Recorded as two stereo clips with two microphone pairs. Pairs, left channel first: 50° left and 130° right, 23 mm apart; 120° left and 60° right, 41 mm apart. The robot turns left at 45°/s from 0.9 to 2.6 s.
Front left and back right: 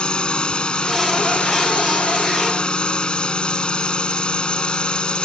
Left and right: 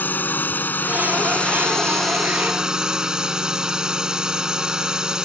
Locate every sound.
0.0 s a drone: 85° left; by 5.2 s 10° left